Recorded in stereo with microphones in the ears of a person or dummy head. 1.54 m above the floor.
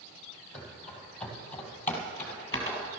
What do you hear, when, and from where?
0.5 s running footsteps: 5° left (ahead or behind), 3.5 m; by 2.9 s 20° left (ahead or behind), 2 m